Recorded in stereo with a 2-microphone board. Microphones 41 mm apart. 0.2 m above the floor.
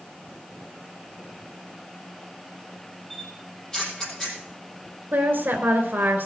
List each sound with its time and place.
3.1 s a camera shutter: 15° left (ahead or behind), 5.5 m
5.1 s a woman speaking: 50° right (ahead or behind), 3 m